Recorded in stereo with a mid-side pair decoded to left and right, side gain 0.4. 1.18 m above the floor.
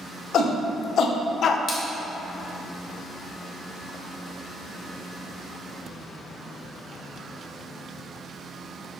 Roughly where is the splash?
Ahead left.